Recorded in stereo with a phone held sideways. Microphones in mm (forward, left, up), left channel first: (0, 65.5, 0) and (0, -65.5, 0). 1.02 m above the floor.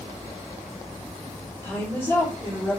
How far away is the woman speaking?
About 4 m.